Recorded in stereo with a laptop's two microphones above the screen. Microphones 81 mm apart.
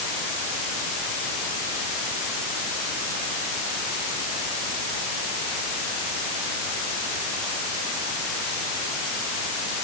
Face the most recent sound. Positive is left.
No sound to turn to.